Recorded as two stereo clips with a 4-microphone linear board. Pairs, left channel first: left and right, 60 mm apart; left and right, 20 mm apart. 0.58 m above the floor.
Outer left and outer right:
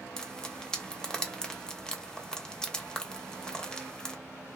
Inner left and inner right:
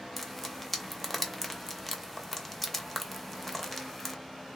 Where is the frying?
10° left (ahead or behind), 0.5 m.